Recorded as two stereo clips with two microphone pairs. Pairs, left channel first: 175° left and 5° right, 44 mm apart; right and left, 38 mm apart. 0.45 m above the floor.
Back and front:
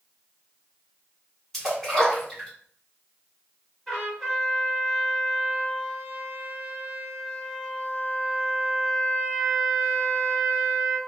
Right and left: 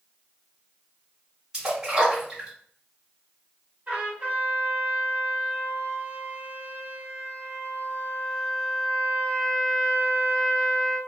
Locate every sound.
1.5 s a splash: 115° left, 1.4 m
3.9 s a trumpet: 95° left, 1.6 m